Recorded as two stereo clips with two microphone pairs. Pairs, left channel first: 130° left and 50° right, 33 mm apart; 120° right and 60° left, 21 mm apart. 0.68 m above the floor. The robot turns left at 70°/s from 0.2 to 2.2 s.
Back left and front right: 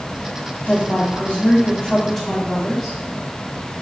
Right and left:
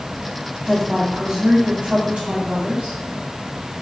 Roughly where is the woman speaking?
Behind left.